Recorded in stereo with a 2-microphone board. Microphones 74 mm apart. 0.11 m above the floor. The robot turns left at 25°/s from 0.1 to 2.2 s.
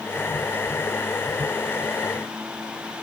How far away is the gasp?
I don't hear a gasp.